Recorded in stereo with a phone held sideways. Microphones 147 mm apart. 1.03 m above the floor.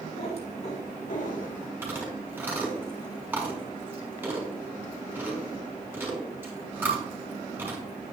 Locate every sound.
0.1 s a cat meowing: 45° left (ahead or behind), 2.5 m; by 1.7 s 75° left (ahead or behind), 1.8 m
1.8 s chewing: 10° right (ahead or behind), 4 m